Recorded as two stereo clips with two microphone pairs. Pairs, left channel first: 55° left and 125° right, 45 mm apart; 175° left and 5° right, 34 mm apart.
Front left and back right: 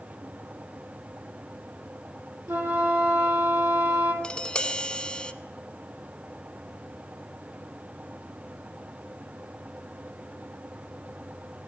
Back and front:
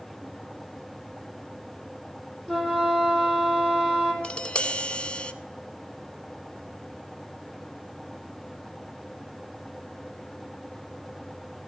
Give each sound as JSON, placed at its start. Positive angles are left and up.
{"t": 2.5, "sound": "a flute", "azimuth_deg": -105, "distance_m": 3.5}
{"t": 4.2, "sound": "tapping", "azimuth_deg": 120, "distance_m": 0.7}